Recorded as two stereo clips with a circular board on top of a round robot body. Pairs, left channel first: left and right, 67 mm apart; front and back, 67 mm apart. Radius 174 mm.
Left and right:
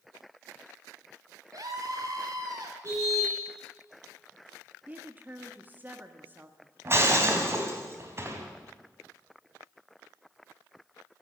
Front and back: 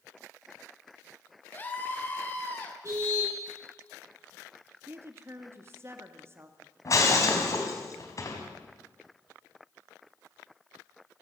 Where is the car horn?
140° right, 7.5 m.